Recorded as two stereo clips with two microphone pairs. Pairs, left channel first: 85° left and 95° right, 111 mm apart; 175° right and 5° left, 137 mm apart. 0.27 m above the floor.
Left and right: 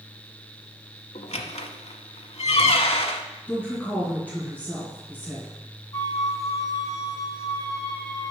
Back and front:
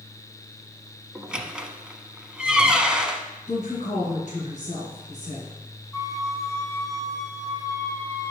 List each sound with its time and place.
1.1 s a squeak: 85° left, 0.7 m
3.5 s a woman speaking: 160° left, 3 m
5.9 s a flute: 125° left, 1.5 m